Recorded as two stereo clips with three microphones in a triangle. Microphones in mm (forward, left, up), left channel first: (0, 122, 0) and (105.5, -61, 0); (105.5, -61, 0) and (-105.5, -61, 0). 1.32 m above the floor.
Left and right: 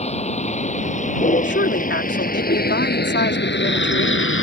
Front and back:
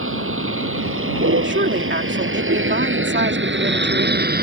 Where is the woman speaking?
150° left.